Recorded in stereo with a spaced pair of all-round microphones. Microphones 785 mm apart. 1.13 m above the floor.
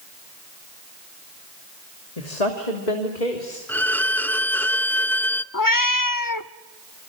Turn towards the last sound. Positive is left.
turn(degrees=25)  # may be behind; listen again after turning